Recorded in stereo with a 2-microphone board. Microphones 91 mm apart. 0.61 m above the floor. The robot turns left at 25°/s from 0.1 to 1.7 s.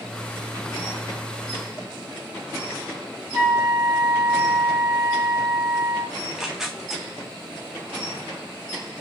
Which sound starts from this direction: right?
A flute, at 3.3 s.